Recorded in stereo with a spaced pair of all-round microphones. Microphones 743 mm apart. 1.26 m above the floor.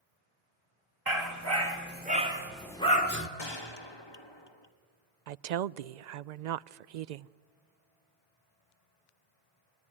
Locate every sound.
1.1 s a dog barking: 25° right (ahead or behind), 2 m; by 3.3 s 20° left (ahead or behind), 1.4 m
3.4 s a gunshot: 35° left (ahead or behind), 1.2 m
5.3 s a woman speaking: 70° right (ahead or behind), 0.6 m